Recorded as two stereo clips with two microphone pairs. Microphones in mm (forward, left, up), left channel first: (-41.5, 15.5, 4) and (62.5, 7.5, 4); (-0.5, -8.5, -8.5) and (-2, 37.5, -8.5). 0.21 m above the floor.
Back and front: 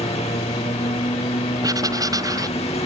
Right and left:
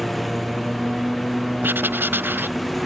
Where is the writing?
50° left.